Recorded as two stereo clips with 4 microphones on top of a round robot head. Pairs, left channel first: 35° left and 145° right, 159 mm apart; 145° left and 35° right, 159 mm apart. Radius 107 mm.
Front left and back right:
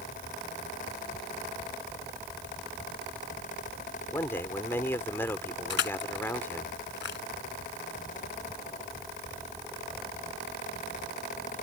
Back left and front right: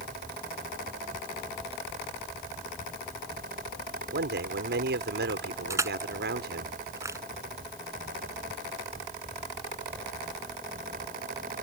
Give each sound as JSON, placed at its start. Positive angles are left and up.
{"t": 4.1, "sound": "a man speaking", "azimuth_deg": -45}
{"t": 5.7, "sound": "crushing", "azimuth_deg": 40}